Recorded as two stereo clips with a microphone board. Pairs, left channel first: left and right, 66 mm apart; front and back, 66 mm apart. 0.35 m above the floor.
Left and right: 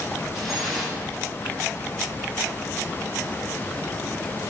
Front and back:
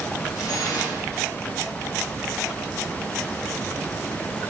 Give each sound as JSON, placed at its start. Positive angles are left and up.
{"t": 0.3, "sound": "dripping", "azimuth_deg": -5, "distance_m": 6.5}